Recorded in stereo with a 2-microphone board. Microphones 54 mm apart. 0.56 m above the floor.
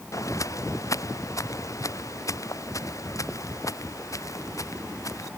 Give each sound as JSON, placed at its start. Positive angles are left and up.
{"t": 0.1, "sound": "footsteps", "side_deg": 70}